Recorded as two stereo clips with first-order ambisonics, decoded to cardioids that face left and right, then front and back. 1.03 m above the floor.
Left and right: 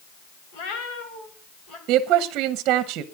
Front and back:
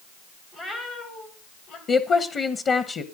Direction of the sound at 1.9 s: 60° right.